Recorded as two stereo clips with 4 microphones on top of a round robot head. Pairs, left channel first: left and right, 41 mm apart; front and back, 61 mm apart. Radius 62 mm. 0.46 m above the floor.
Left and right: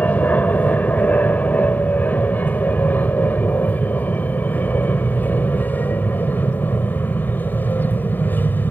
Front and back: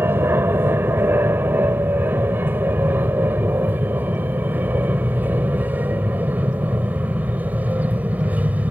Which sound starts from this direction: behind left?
An aircraft, at 0.0 s.